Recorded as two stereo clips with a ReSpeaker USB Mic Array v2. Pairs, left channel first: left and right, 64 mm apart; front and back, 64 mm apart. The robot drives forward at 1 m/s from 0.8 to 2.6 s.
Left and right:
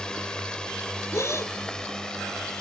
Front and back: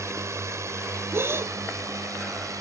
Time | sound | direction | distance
0.0 | a drone | 165° left | ?
1.1 | a gasp | 130° left | ?